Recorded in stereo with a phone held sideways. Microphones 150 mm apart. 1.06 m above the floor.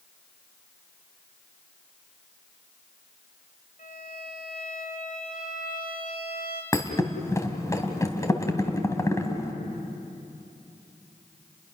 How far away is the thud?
About 2 m.